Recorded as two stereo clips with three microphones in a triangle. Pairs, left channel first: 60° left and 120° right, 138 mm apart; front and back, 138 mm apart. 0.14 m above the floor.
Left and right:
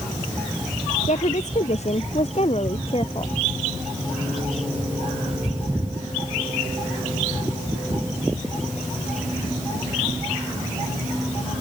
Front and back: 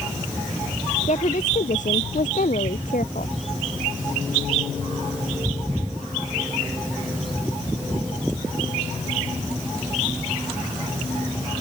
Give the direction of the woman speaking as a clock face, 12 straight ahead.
11 o'clock.